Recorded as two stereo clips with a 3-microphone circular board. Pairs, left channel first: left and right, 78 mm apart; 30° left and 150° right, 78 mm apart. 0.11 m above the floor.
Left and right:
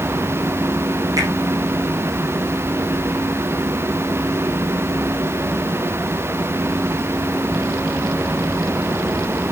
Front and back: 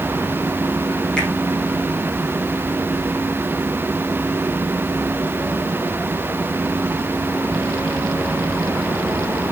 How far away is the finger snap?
About 5.5 m.